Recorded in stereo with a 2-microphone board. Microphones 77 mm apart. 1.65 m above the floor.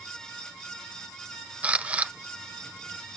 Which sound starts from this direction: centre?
A camera shutter, at 1.6 s.